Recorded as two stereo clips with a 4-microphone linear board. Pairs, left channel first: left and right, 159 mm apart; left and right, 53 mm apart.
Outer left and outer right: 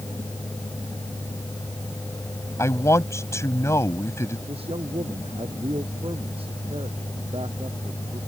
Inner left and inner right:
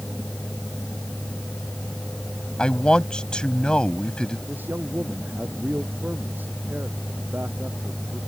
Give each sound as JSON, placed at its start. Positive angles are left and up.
{"t": 2.6, "sound": "a man speaking", "side_deg": 15}
{"t": 4.5, "sound": "a man speaking", "side_deg": -35}